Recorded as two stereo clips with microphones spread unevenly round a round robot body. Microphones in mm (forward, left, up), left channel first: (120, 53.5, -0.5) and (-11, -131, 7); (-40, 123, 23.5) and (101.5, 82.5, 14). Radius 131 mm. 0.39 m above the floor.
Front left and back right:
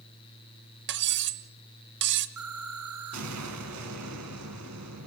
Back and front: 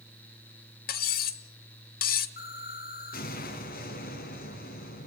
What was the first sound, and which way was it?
Cutlery clinking, 170° right.